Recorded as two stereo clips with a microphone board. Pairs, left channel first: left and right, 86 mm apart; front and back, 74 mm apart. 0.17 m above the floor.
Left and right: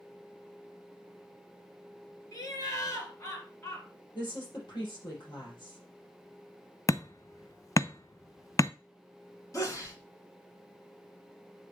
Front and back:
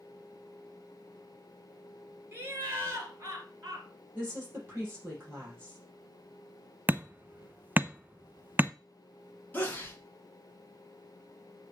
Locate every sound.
2.3 s laughter: 125° left, 3 m; by 3.9 s 140° left, 4 m
4.2 s a woman speaking: 120° left, 5.5 m
6.9 s hammering: 125° left, 0.5 m
9.5 s a sneeze: 55° left, 1.9 m